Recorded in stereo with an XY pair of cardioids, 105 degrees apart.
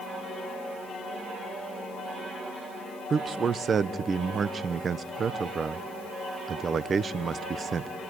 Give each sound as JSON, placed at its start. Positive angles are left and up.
{"t": 3.1, "sound": "a man speaking", "azimuth_deg": -45, "distance_m": 1.0}